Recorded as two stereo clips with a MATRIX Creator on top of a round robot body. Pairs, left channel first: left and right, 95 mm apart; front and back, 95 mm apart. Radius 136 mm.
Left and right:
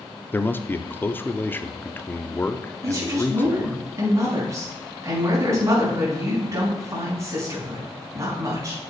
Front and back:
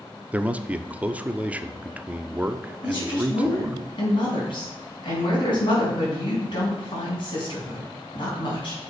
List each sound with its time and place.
0.3 s a man speaking: 125° left, 0.8 m
2.8 s a woman speaking: 30° right, 4 m